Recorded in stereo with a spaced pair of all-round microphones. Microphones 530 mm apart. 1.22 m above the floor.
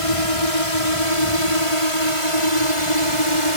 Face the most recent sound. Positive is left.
turn(degrees=65)  # may be behind; listen again after turning